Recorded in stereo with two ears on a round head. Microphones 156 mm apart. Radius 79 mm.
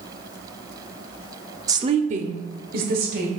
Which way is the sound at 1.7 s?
20° right (ahead or behind).